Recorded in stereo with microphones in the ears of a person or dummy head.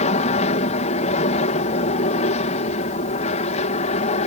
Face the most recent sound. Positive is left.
turn(degrees=40)  # may be behind; listen again after turning